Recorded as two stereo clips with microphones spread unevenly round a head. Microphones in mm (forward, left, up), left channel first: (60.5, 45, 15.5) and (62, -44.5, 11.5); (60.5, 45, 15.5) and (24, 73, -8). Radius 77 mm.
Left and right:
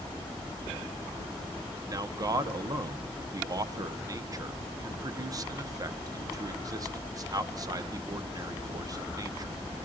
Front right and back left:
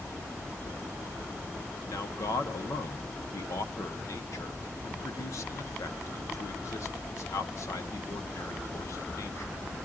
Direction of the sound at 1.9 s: 40° right.